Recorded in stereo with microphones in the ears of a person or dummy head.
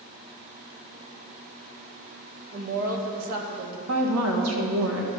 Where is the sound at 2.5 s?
50° right (ahead or behind), 1.5 m.